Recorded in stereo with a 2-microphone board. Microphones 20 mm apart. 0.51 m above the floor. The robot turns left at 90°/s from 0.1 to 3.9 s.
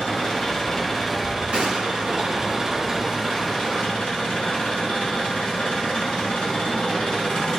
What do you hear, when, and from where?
0.0 s an engine running: 85° left, 5 m; by 7.6 s 100° left, 5 m
1.5 s a gunshot: 70° right, 5.5 m; by 2.2 s 130° right, 5.5 m